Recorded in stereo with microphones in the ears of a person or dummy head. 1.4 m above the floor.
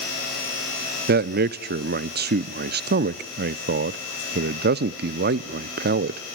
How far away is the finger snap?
I don't hear a finger snap.